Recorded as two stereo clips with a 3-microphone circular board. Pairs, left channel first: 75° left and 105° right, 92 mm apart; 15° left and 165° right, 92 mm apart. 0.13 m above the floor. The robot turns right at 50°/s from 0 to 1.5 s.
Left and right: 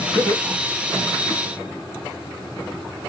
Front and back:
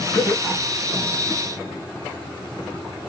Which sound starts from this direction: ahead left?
Laughter, at 0.1 s.